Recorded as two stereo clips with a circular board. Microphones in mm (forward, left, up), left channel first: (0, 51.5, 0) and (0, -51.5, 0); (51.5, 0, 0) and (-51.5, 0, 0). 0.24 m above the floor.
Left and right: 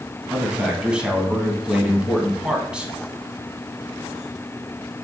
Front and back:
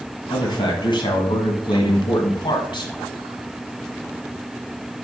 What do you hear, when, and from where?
0.3 s a man speaking: 10° right, 1.4 m